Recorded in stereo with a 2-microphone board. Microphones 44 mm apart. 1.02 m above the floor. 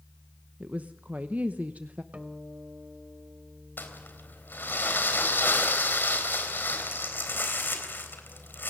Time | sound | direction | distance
0.6 | a woman speaking | 40° right (ahead or behind) | 0.9 m
2.1 | a guitar | 30° right (ahead or behind) | 1.5 m
3.8 | crumpling | 50° left (ahead or behind) | 3.5 m